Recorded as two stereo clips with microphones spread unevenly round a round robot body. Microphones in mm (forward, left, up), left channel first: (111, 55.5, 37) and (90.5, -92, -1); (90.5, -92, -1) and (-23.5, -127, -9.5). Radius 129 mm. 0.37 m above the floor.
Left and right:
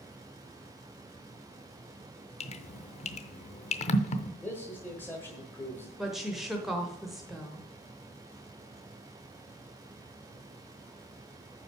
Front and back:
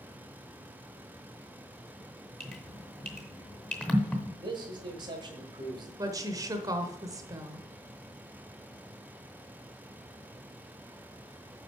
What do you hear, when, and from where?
2.4 s dripping: 95° left, 0.7 m
4.4 s a man speaking: 170° left, 1.4 m
6.0 s a woman speaking: 160° right, 0.9 m